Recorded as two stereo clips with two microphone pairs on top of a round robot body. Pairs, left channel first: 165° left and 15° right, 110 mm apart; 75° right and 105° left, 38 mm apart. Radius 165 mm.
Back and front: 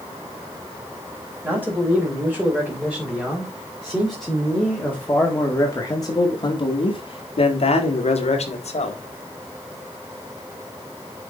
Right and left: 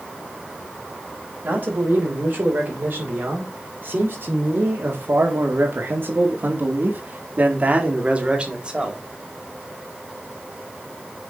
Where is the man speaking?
60° left, 4 m; by 9.0 s 170° left, 2.5 m.